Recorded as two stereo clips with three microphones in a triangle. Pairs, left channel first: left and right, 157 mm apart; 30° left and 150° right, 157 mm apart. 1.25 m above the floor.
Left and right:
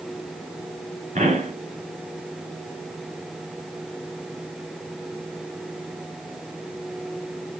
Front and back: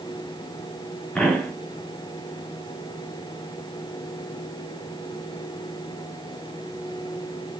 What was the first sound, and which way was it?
A pop, 55° right.